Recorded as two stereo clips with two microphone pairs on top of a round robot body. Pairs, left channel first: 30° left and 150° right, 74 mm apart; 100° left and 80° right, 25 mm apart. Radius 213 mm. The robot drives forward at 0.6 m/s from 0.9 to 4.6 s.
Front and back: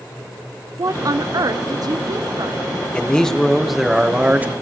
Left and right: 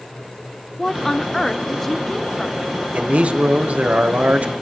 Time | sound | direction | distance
0.8 | a woman speaking | 175° left | 0.7 m
2.9 | a man speaking | 45° right | 1.6 m